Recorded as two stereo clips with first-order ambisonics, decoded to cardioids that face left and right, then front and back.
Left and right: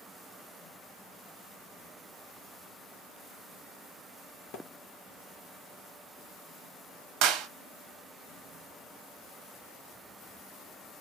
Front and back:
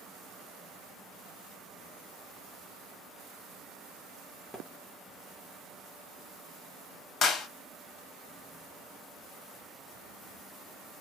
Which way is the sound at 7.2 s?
60° right.